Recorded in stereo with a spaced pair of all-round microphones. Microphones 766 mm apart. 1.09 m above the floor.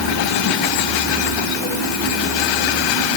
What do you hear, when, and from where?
Only background noise.